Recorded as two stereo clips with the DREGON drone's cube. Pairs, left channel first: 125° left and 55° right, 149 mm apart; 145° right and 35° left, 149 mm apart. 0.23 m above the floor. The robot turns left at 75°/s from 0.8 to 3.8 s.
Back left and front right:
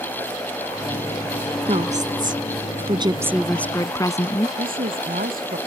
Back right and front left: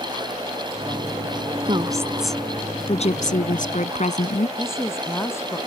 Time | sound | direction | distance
1.7 | a woman speaking | 10° right | ?
4.6 | a woman speaking | 75° right | ?